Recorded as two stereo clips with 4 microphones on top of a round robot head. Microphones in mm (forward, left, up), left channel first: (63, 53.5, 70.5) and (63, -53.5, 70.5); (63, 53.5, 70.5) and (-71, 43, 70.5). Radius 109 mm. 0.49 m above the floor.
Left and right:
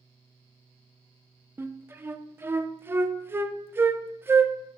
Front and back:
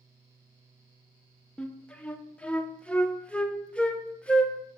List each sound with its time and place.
1.6 s a flute: 65° right, 0.5 m